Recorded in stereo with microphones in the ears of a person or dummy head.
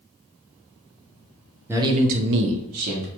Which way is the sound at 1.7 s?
10° right (ahead or behind).